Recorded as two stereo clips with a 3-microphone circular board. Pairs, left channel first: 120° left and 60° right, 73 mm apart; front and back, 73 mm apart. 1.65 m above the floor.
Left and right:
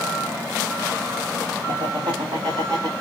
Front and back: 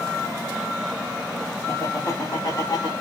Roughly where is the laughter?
Ahead right.